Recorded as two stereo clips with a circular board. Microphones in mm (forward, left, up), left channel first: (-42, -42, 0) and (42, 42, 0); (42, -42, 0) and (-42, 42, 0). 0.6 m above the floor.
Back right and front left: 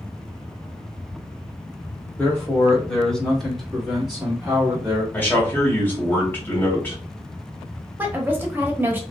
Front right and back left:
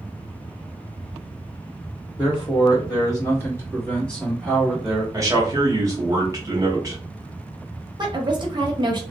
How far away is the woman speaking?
About 0.8 m.